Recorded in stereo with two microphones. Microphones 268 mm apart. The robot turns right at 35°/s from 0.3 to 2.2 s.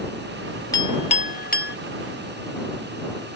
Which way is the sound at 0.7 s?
15° left (ahead or behind).